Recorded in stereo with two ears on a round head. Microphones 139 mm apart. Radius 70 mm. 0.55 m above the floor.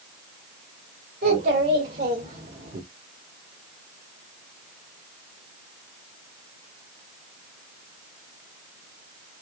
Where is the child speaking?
65° right (ahead or behind), 1.8 m; by 2.8 s 40° right (ahead or behind), 0.9 m.